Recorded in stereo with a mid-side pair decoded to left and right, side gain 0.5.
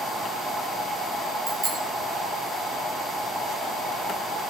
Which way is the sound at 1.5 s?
40° right.